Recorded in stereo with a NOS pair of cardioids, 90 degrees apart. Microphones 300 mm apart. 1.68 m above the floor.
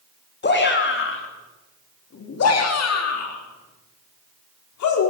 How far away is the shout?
About 4 m.